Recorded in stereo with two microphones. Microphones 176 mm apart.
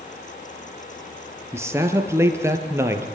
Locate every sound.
1.5 s a man speaking: 15° right (ahead or behind), 3.5 m